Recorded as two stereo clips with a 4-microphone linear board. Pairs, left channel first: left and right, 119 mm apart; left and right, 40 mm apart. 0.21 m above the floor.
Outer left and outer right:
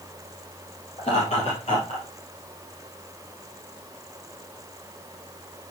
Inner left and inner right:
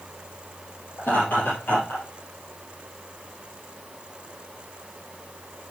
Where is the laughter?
55° left (ahead or behind), 5 m; by 2.0 s 50° left (ahead or behind), 3.5 m.